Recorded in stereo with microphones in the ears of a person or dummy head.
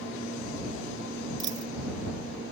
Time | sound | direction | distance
1.4 | a dropped coin | 20° right (ahead or behind) | ?